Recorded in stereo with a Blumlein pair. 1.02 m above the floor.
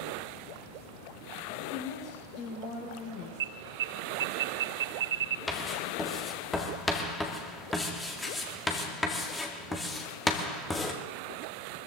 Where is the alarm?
60° right, 0.7 m.